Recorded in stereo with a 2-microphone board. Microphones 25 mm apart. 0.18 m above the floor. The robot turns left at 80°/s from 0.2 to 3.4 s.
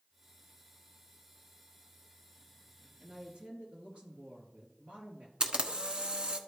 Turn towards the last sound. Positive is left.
turn(degrees=-35)  # may be behind; listen again after turning